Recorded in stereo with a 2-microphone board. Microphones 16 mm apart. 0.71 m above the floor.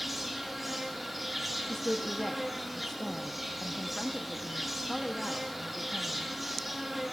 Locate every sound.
0.0 s an insect: 5° right (ahead or behind), 1.5 m
1.7 s a woman speaking: 30° left (ahead or behind), 0.7 m